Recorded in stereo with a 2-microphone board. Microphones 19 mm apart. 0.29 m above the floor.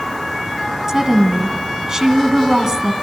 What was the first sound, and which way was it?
A woman speaking, 40° right (ahead or behind).